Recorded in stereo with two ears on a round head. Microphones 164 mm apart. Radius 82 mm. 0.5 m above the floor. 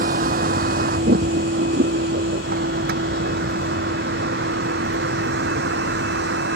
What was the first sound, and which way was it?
A vehicle, 45° right (ahead or behind).